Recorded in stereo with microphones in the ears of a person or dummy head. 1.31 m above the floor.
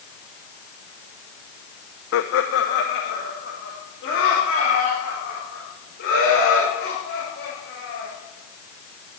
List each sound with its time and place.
2.1 s laughter: 75° left (ahead or behind), 0.6 m; by 8.1 s 85° left, 6 m